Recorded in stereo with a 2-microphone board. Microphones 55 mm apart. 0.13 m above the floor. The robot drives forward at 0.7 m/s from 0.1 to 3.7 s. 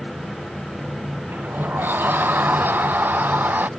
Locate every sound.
1.3 s a sliding door: 40° right (ahead or behind); by 3.7 s 35° right (ahead or behind)